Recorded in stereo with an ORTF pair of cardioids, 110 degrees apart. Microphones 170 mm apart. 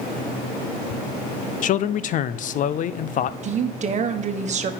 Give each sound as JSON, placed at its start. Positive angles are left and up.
{"t": 1.6, "sound": "a man speaking", "azimuth_deg": 50, "distance_m": 0.6}
{"t": 3.4, "sound": "a woman speaking", "azimuth_deg": -45, "distance_m": 1.3}